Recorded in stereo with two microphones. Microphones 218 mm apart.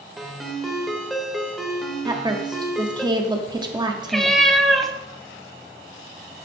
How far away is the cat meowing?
About 0.6 m.